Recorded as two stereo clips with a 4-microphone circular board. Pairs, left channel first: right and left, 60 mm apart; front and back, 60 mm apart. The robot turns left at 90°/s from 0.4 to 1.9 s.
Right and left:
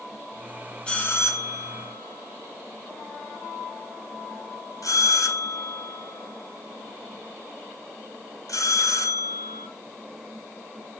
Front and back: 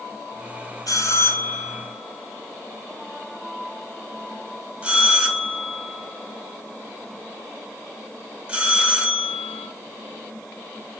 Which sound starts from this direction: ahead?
A bell, at 0.9 s.